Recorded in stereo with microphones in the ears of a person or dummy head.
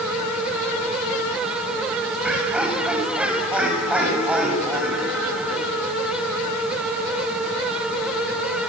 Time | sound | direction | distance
2.2 | laughter | 10° right (ahead or behind) | 7.5 m